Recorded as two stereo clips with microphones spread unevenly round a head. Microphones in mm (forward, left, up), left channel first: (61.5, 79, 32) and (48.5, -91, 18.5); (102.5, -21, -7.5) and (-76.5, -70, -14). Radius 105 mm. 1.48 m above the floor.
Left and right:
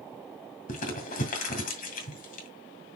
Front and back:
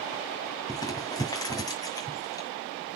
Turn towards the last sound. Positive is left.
turn(degrees=80)